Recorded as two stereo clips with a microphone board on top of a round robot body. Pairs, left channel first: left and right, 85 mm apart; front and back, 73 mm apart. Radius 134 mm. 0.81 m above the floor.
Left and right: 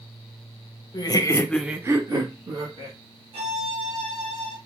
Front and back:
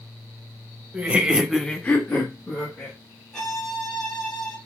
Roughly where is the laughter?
Left.